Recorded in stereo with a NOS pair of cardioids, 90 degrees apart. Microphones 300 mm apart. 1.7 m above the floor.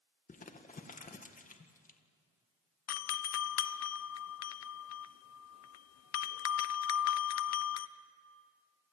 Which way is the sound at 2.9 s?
60° left.